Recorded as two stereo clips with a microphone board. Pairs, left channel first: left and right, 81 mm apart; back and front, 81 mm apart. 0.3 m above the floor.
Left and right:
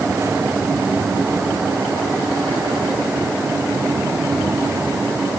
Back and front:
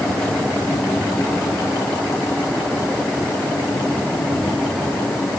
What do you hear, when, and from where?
Only background noise.